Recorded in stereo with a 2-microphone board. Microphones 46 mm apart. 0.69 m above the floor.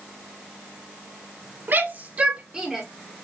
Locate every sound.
1.7 s a shout: 45° right (ahead or behind), 2 m; by 2.9 s 5° right (ahead or behind), 2 m